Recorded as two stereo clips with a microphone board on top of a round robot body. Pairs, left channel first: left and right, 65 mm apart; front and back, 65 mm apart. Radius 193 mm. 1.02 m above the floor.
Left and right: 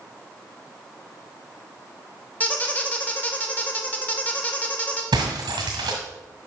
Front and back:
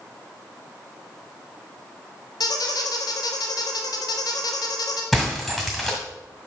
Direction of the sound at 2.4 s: 20° left.